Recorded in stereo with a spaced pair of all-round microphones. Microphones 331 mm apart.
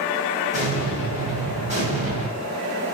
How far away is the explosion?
About 1.7 m.